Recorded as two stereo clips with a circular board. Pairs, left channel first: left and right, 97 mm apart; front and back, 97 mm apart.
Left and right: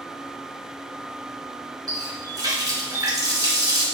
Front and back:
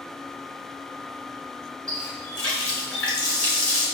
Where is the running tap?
75° right, 1.2 m.